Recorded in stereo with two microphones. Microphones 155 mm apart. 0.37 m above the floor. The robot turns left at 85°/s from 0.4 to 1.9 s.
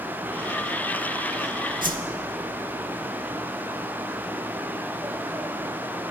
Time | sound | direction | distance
1.8 | a whoosh | 60° right (ahead or behind) | 0.8 m